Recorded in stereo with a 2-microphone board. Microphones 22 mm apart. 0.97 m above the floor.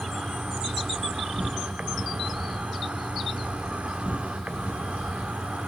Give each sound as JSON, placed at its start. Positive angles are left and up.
{"t": 0.0, "sound": "an insect", "side_deg": -60, "distance_m": 0.9}